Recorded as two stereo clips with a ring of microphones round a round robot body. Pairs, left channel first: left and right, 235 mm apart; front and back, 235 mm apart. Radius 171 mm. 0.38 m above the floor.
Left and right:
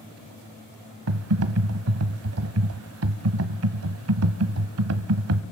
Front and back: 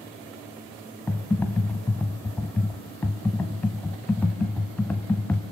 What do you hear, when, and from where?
1.1 s typing on a keyboard: 85° right, 1.6 m